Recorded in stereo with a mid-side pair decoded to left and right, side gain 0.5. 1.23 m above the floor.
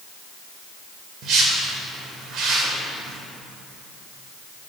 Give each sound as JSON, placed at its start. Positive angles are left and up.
{"t": 1.2, "sound": "a whoosh", "azimuth_deg": -65, "distance_m": 2.5}